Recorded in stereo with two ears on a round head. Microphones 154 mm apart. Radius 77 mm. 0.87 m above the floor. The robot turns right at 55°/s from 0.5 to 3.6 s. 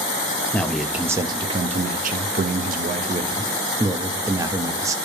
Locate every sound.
0.5 s a man speaking: 170° left, 0.8 m; by 5.0 s 25° right, 0.8 m